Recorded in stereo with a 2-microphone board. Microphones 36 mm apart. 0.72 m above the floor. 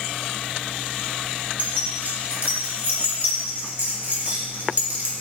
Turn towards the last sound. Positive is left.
turn(degrees=-55)  # may be behind; listen again after turning